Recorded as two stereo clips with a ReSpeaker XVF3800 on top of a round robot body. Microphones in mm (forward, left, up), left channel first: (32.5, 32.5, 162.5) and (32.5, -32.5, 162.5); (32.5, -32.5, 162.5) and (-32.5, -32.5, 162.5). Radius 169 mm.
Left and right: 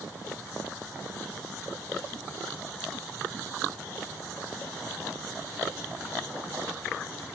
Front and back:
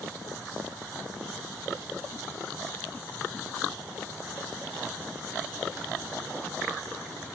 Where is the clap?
I don't hear a clap.